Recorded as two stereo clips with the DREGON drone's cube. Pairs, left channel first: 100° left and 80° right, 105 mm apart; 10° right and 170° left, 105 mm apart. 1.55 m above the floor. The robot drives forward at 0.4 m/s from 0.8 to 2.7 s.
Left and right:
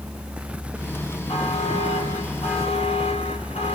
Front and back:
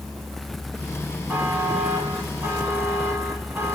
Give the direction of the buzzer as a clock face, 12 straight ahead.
9 o'clock.